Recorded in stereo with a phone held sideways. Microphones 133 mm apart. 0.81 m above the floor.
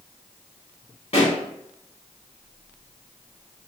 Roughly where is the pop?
Left.